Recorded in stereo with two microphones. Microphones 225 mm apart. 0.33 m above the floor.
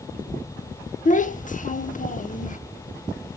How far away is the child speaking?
About 0.6 m.